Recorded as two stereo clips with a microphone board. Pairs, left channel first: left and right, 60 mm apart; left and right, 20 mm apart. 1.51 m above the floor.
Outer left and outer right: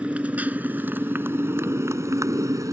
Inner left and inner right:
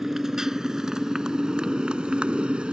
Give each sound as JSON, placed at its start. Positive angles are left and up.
{"t": 0.0, "sound": "a motorcycle", "side_deg": -20}